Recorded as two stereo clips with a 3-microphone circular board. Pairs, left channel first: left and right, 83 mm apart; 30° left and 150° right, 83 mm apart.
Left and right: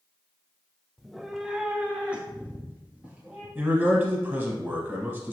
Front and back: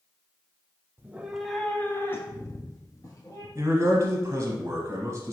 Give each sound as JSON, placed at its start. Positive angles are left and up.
{"t": 1.0, "sound": "a cat meowing", "azimuth_deg": 180, "distance_m": 0.6}
{"t": 3.5, "sound": "a man speaking", "azimuth_deg": -135, "distance_m": 1.2}